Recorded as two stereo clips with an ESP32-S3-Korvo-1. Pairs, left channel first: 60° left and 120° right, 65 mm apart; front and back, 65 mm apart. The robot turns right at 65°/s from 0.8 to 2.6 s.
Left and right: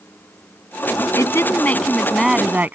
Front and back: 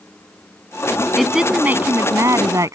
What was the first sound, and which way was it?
A woman speaking, 90° left.